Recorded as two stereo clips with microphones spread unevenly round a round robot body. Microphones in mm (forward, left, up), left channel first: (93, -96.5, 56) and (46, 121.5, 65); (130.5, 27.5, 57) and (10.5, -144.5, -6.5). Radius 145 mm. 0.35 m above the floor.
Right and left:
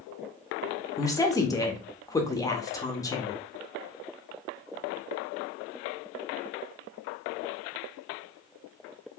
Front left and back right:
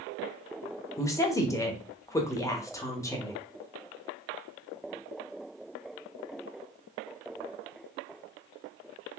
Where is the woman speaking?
45° right, 0.8 m.